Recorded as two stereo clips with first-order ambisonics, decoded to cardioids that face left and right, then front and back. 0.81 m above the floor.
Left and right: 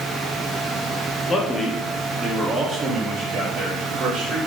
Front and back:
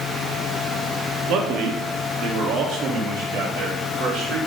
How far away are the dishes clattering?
I don't hear dishes clattering.